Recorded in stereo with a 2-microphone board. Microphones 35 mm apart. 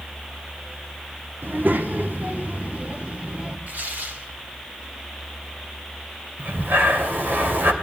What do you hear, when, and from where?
1.4 s a child speaking: 70° right (ahead or behind), 1.2 m; by 3.6 s 40° right (ahead or behind), 1.8 m
3.7 s tearing paper: 60° right (ahead or behind), 2.5 m
6.4 s breathing: 70° right (ahead or behind), 2.5 m